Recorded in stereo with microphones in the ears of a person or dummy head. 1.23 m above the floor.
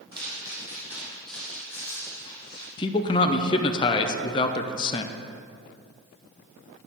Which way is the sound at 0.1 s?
30° right (ahead or behind).